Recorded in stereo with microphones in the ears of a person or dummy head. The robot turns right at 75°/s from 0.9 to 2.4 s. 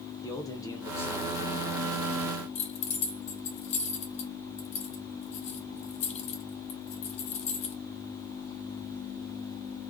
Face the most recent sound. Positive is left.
turn(degrees=40)  # may be behind; listen again after turning